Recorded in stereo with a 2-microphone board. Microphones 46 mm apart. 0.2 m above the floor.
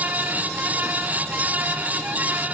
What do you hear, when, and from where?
Only background noise.